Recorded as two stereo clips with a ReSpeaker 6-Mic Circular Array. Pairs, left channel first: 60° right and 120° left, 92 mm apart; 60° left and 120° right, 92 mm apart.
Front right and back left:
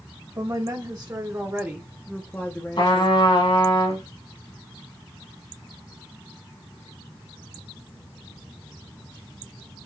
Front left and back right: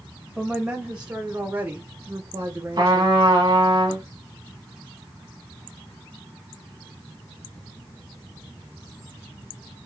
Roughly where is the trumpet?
Right.